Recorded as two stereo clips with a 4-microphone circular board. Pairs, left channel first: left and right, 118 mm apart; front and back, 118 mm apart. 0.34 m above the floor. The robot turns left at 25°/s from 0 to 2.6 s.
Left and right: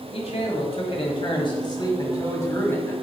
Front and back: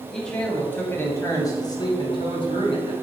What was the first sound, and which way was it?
A man speaking, 85° left.